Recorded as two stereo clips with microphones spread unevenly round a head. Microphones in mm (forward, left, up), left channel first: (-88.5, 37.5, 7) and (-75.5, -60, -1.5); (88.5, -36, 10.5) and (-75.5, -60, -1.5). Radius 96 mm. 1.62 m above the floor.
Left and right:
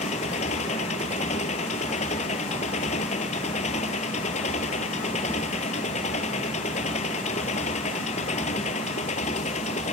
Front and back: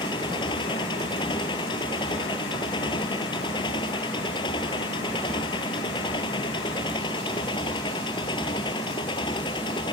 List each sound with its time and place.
0.0 s an engine running: 75° left